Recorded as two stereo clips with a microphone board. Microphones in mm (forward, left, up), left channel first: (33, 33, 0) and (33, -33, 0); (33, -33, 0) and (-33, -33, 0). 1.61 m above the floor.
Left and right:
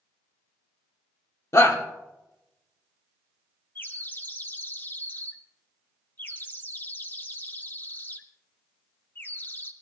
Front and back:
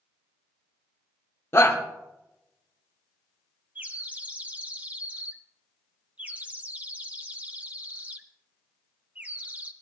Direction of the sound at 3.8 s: 125° left.